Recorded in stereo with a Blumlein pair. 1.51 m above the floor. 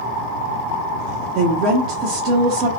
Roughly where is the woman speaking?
Ahead right.